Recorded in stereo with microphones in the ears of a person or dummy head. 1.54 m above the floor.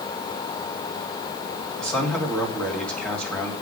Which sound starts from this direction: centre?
A man speaking, at 1.8 s.